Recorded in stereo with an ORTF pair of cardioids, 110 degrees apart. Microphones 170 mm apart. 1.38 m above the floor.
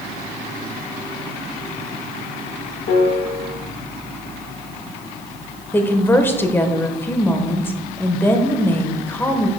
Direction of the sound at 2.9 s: 65° left.